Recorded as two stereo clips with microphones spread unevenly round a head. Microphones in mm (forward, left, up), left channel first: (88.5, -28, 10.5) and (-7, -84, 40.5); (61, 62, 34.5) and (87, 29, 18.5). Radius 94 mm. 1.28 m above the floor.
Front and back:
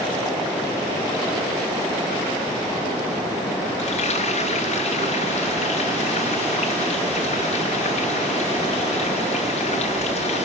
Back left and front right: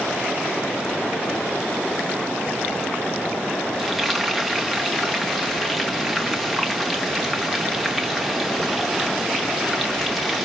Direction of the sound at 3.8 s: 40° left.